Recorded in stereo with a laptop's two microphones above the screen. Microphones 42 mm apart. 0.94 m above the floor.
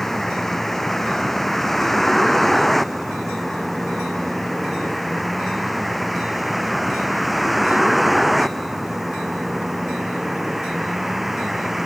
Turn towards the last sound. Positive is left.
turn(degrees=-5)  # may be behind; listen again after turning